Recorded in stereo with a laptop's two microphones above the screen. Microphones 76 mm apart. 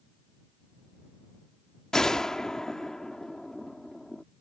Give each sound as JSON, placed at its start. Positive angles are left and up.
{"t": 1.9, "sound": "a gunshot", "side_deg": 10}